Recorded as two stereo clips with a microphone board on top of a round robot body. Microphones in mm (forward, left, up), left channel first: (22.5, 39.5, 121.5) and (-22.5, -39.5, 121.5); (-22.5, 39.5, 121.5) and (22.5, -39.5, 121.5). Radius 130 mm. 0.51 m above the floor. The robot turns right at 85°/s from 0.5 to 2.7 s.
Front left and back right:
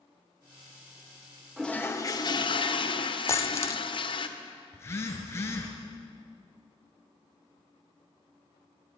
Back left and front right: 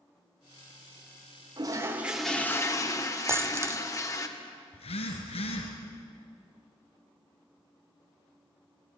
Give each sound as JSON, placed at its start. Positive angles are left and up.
{"t": 1.6, "sound": "a toilet flushing", "azimuth_deg": -25, "distance_m": 2.5}
{"t": 3.3, "sound": "a dropped coin", "azimuth_deg": 0, "distance_m": 0.9}
{"t": 4.7, "sound": "a phone buzzing", "azimuth_deg": 125, "distance_m": 3.5}